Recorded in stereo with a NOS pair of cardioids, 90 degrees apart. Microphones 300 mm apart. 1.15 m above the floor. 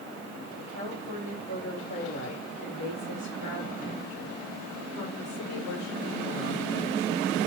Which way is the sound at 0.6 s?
35° left.